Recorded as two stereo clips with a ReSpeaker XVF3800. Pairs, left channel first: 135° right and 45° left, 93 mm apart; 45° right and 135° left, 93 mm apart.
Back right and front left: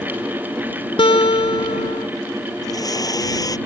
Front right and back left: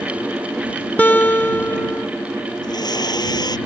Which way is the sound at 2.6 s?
85° right.